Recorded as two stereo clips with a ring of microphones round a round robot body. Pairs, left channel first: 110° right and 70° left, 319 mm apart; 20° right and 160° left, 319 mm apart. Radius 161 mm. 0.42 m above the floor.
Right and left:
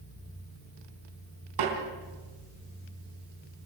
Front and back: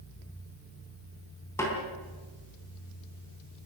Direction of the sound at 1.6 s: 60° left.